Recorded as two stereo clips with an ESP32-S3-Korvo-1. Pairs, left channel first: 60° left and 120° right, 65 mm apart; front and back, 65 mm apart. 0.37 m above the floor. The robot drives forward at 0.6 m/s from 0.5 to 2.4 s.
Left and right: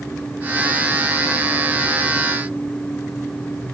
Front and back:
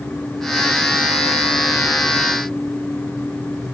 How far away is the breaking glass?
I don't hear breaking glass.